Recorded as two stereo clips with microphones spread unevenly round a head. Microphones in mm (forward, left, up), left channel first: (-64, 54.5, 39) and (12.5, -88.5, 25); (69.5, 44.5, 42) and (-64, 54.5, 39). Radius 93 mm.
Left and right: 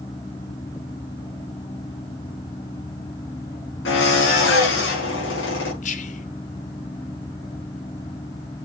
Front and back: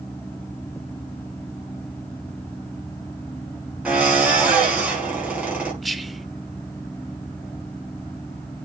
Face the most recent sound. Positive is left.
turn(degrees=85)